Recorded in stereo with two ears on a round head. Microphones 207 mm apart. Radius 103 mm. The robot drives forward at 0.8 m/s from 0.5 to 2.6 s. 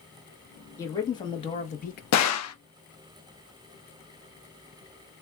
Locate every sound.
0.8 s a man speaking: 15° left (ahead or behind), 1.3 m; by 2.0 s 40° left (ahead or behind), 0.5 m
2.1 s a gunshot: 80° left, 0.7 m; by 2.5 s 65° left (ahead or behind), 0.8 m